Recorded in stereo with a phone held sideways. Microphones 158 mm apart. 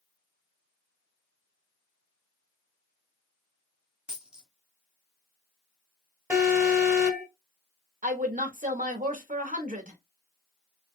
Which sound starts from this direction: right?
A woman speaking, at 8.0 s.